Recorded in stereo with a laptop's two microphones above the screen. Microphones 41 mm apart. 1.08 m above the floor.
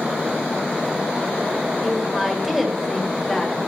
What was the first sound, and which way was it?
A woman speaking, 5° right (ahead or behind).